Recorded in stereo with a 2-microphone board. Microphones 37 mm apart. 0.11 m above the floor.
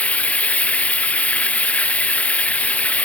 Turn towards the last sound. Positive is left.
turn(degrees=40)  # may be behind; listen again after turning